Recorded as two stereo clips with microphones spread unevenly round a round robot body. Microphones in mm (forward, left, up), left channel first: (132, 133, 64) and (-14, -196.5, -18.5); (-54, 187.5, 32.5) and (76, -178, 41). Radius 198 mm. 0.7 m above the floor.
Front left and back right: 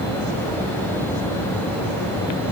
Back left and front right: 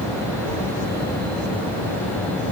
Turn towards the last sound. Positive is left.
No sound to turn to.